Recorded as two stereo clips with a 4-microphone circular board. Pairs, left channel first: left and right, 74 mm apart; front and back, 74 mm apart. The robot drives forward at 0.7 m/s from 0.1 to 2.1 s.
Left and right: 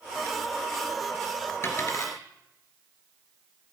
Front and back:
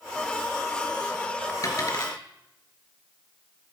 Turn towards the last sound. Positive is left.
turn(degrees=40)